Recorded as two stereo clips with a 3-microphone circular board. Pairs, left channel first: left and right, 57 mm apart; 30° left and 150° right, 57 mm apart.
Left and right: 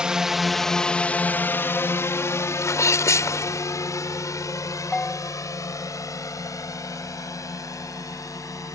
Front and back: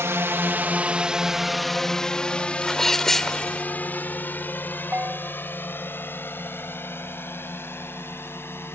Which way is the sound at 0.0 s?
160° right.